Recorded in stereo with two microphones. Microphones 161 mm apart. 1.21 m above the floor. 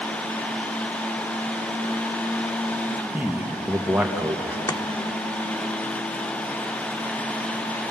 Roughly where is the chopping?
Left.